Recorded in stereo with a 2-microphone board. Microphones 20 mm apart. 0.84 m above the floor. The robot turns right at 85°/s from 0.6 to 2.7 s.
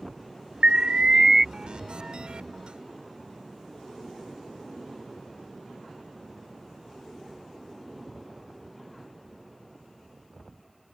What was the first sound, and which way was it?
An alarm, 80° right.